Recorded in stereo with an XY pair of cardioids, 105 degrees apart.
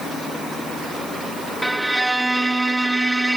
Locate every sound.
1.6 s a violin: 10° right, 1.2 m